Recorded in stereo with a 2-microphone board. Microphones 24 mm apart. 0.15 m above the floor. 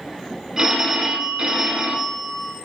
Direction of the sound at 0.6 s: 25° right (ahead or behind).